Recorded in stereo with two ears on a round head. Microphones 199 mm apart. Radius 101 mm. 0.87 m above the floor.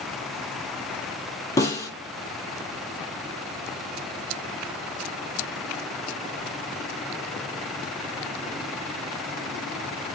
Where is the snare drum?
15° left (ahead or behind), 6 m.